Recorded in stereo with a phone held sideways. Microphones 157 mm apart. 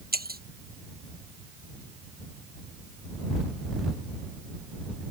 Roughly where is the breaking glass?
Right.